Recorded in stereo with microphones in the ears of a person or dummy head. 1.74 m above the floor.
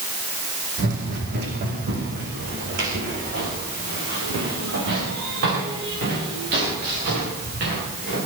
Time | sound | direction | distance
0.8 | running footsteps | 50° right (ahead or behind) | 5.5 m